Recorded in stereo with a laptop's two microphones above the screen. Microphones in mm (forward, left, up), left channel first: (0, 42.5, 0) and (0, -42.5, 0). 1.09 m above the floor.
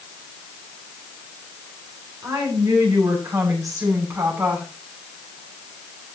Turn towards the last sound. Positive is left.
turn(degrees=-30)  # may be behind; listen again after turning